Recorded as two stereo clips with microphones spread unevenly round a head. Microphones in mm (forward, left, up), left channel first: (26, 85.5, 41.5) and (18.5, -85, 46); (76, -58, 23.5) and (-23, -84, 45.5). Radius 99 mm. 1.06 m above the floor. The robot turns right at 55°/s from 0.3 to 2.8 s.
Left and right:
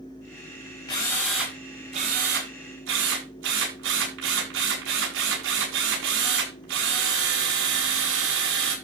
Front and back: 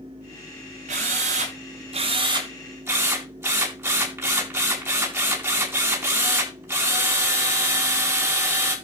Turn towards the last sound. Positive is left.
turn(degrees=-100)